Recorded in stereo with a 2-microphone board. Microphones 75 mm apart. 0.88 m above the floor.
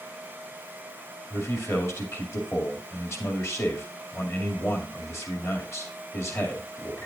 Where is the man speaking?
40° left (ahead or behind), 2 m.